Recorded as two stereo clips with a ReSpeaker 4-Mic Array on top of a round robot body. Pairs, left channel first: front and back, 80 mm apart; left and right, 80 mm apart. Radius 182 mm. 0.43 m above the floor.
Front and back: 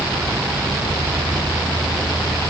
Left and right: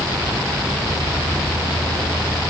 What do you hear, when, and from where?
Only background noise.